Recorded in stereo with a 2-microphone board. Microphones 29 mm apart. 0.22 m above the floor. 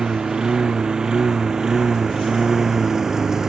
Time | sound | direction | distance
0.0 | a lawn mower | 30° right (ahead or behind) | ?